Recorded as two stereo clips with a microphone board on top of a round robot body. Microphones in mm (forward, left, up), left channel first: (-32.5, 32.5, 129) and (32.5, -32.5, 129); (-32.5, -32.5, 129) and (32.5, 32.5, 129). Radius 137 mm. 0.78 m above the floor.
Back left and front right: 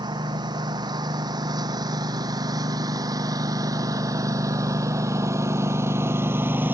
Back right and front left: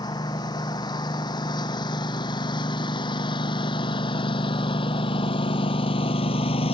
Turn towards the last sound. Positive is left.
turn(degrees=-115)